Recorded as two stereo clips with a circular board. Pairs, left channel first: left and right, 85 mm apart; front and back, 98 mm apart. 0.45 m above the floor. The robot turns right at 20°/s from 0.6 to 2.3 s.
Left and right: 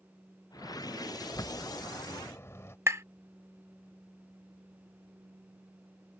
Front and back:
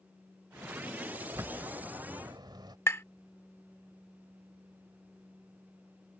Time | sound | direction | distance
1.2 | a bird | 125° left | ?
2.9 | tapping | 50° right | ?